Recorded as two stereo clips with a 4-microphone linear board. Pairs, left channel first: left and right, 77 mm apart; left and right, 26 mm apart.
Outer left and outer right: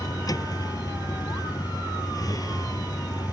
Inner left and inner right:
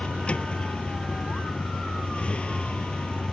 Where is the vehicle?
55° left (ahead or behind).